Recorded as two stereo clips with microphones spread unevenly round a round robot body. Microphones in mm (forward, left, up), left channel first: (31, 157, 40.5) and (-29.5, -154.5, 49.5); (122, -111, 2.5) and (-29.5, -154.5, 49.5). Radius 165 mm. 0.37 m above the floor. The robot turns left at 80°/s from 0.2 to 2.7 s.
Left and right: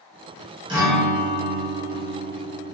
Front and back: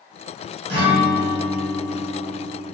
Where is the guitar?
175° right, 0.8 m; by 2.7 s 25° left, 0.8 m.